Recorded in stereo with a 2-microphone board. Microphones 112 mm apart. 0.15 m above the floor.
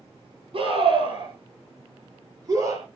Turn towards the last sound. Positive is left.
turn(degrees=-35)  # may be behind; listen again after turning